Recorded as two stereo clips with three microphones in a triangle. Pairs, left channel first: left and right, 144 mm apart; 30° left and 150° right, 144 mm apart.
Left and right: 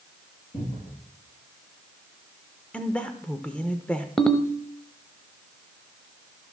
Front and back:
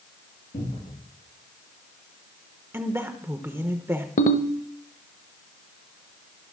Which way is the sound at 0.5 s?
50° left.